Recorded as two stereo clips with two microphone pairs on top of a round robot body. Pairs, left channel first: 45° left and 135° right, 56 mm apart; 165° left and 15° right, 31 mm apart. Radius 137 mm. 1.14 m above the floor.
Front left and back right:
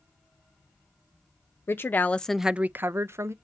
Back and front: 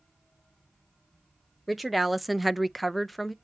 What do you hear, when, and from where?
1.7 s a woman speaking: 80° left, 0.9 m; by 3.3 s 115° right, 1.1 m